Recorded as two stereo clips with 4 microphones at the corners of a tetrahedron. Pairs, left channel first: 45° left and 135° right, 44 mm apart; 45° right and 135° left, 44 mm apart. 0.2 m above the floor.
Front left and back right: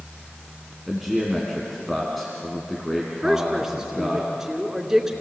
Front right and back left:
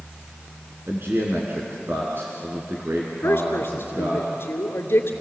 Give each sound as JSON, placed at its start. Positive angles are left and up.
{"t": 0.9, "sound": "a man speaking", "azimuth_deg": 135, "distance_m": 2.5}
{"t": 3.2, "sound": "a woman speaking", "azimuth_deg": -55, "distance_m": 2.5}